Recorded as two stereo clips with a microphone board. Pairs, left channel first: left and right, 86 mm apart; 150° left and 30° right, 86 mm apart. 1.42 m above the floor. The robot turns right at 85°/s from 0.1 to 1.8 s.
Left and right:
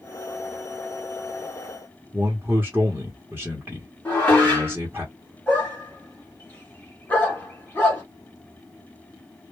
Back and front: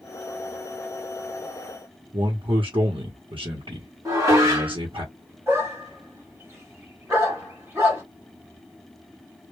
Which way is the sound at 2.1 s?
20° right.